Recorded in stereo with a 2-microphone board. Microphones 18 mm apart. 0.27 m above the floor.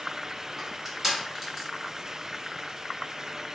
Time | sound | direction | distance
0.6 | crushing | centre (ahead or behind) | 1.4 m